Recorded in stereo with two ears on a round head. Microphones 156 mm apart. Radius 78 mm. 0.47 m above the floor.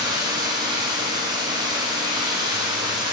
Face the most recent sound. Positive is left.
turn(degrees=-25)  # may be behind; listen again after turning